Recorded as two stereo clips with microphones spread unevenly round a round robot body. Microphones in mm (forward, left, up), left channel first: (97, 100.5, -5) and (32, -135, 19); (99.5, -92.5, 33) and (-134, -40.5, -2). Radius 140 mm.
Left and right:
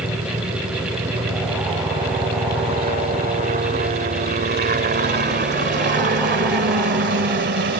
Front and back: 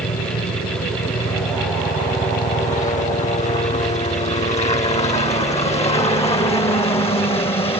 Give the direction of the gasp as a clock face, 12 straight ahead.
No gasp in this recording.